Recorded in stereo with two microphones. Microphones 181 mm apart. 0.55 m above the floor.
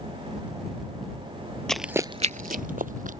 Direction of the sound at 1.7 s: 5° left (ahead or behind).